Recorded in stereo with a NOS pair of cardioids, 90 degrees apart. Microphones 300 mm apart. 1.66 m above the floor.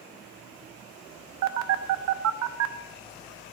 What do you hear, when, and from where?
1.4 s a phone buzzing: 65° right, 0.9 m